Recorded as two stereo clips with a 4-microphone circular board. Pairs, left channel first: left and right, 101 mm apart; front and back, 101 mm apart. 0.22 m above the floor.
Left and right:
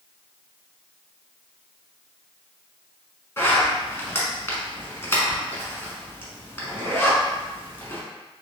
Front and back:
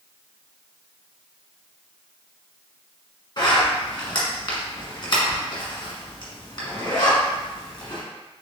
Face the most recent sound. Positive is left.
turn(degrees=30)